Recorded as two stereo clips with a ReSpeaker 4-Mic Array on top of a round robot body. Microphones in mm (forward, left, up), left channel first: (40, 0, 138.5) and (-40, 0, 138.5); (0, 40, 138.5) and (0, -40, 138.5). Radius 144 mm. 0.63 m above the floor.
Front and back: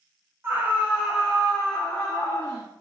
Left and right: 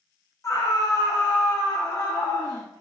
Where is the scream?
125° left, 1.2 m; by 2.7 s 60° left, 1.7 m.